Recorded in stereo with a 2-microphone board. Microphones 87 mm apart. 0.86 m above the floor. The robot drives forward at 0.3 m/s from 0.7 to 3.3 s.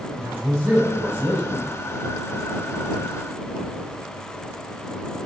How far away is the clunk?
No clunk in this recording.